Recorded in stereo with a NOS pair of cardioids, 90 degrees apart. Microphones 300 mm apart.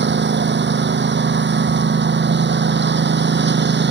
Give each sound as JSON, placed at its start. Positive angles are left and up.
{"t": 0.0, "sound": "a lawn mower", "azimuth_deg": -35}